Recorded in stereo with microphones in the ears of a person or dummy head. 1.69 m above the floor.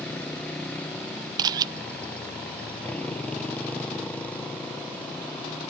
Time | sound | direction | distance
0.0 | a motorcycle | 5° left (ahead or behind) | ?
1.4 | a camera shutter | 20° right (ahead or behind) | ?